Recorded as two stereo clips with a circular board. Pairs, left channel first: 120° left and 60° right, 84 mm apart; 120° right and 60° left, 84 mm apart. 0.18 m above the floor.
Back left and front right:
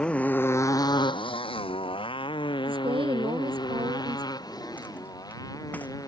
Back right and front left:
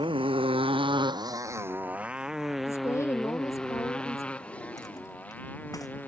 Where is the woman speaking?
65° right.